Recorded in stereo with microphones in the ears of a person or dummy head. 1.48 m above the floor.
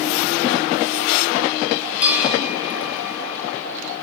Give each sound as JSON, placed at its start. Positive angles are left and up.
{"t": 2.0, "sound": "a bell", "side_deg": -5, "distance_m": 3.5}